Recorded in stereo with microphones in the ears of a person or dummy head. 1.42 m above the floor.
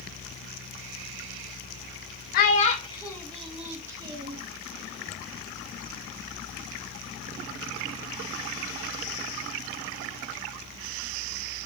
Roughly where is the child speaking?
Left.